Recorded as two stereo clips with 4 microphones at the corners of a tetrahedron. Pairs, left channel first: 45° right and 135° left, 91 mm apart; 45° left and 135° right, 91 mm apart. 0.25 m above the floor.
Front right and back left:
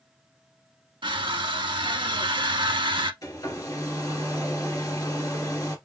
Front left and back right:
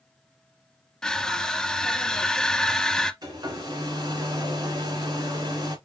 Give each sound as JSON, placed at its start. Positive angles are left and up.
{"t": 1.0, "sound": "crushing", "azimuth_deg": 130, "distance_m": 0.7}
{"t": 3.2, "sound": "a hair dryer", "azimuth_deg": -90, "distance_m": 2.0}